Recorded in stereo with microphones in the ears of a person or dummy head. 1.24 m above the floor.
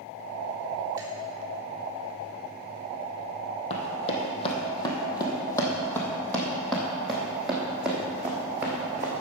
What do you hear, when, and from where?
1.0 s dripping: 20° right (ahead or behind), 2.5 m
3.7 s running footsteps: 40° left (ahead or behind), 2.5 m; by 9.2 s 15° right (ahead or behind), 3.5 m